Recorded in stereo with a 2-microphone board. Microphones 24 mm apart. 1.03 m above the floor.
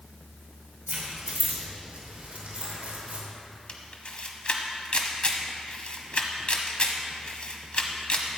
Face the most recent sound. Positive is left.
turn(degrees=45)  # may be behind; listen again after turning